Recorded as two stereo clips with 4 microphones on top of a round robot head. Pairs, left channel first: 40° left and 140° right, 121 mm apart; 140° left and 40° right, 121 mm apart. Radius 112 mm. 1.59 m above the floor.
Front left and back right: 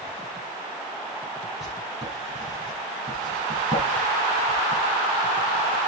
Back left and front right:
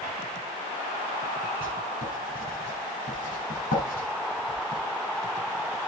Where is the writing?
130° left, 6 m.